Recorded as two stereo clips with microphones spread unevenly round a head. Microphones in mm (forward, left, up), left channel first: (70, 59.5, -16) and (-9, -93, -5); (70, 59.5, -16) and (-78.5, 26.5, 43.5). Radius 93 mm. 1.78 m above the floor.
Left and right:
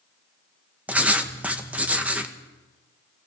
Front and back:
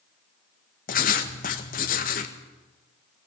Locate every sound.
0.9 s writing: 35° right, 1.9 m